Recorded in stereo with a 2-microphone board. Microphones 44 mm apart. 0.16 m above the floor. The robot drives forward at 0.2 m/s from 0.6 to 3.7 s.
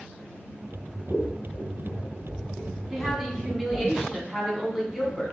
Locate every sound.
1.1 s scissors: 35° left (ahead or behind), 0.7 m
2.9 s a woman speaking: 5° right (ahead or behind), 1.0 m